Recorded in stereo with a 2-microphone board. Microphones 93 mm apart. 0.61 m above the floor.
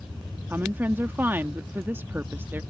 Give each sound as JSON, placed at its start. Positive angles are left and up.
{"t": 0.5, "sound": "a woman speaking", "side_deg": -25}